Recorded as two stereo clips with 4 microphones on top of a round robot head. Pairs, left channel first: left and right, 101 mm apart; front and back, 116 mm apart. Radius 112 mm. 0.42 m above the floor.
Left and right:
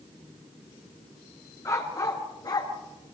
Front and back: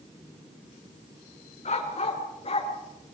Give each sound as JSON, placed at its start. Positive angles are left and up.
{"t": 1.6, "sound": "a dog barking", "azimuth_deg": 30, "distance_m": 3.0}